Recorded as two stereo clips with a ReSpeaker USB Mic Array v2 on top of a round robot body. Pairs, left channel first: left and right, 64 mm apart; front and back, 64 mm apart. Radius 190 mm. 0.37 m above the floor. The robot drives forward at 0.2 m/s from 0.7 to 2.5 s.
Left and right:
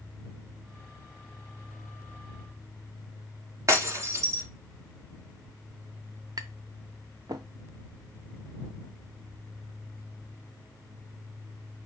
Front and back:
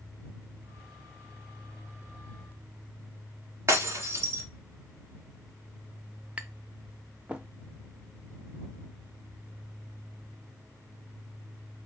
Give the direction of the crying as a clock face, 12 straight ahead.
I don't hear crying.